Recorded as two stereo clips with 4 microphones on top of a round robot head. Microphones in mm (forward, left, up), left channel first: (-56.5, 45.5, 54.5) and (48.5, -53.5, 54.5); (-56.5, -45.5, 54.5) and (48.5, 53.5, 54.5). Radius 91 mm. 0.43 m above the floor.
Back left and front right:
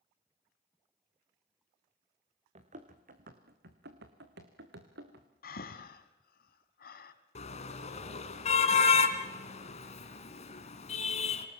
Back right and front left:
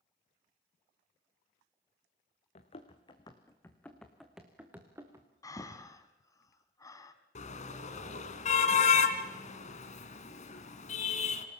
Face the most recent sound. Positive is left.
turn(degrees=180)